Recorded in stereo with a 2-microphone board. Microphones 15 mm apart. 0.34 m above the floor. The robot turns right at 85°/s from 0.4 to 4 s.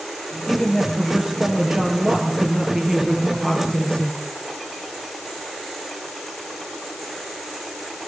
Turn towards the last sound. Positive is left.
turn(degrees=70)